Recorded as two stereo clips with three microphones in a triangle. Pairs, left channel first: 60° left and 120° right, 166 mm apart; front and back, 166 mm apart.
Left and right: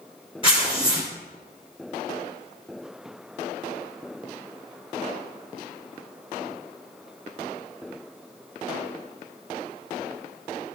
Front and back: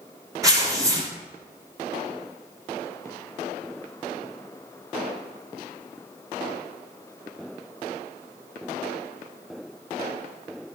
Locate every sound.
0.4 s tearing paper: 110° left, 3 m